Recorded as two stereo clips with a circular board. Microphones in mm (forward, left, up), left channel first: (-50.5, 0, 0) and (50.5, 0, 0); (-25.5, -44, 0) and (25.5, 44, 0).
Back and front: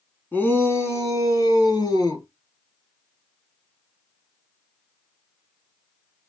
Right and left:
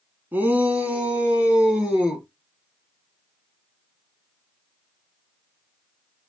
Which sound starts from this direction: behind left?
A shout, at 0.3 s.